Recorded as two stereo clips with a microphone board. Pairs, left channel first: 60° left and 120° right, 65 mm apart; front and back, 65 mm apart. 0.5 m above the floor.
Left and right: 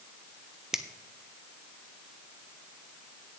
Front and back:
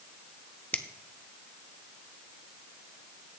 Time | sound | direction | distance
0.7 | a finger snap | 45° right | 0.6 m